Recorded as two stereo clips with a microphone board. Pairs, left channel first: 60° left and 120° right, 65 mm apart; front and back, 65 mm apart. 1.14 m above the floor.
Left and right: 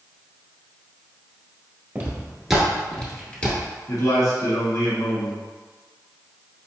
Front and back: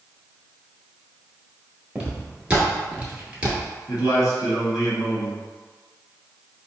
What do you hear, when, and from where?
1.9 s footsteps: 130° right, 1.1 m; by 3.7 s 115° left, 1.5 m
3.9 s a man speaking: 30° left, 1.4 m